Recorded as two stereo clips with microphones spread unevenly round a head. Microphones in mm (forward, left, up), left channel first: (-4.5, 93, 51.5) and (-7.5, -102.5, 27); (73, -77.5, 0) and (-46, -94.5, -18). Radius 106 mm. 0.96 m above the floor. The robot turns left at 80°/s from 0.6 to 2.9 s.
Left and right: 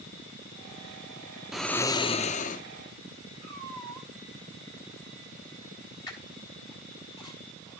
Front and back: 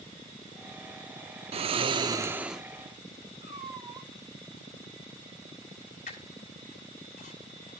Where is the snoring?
175° left, 0.5 m; by 2.6 s 85° left, 0.5 m.